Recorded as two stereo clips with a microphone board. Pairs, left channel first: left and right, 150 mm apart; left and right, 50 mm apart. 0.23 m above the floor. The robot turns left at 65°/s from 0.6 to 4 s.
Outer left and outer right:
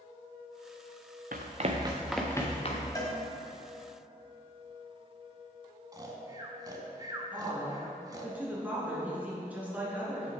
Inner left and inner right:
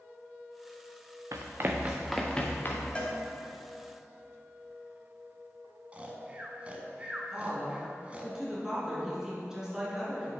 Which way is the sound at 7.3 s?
10° right (ahead or behind).